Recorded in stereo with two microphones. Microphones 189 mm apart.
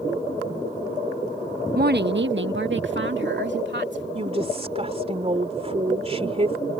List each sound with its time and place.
1.8 s a woman speaking: 55° right (ahead or behind); by 4.0 s 70° right (ahead or behind)
4.2 s a woman speaking: 35° right (ahead or behind)